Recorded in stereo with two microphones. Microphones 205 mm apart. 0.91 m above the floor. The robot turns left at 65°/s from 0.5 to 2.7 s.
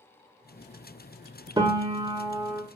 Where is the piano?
20° right (ahead or behind), 0.6 m; by 2.6 s 10° right (ahead or behind), 0.6 m.